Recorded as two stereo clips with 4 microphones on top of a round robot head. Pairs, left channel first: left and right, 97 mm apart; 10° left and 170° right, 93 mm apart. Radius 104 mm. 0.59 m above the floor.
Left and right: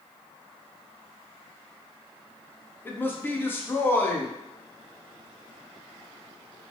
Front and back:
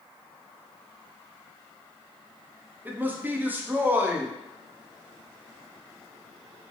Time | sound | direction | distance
2.9 | a man speaking | 135° left | 0.6 m